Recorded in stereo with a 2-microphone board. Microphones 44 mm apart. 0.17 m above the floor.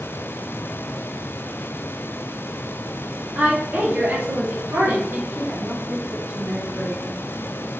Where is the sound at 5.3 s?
50° right (ahead or behind), 2.5 m.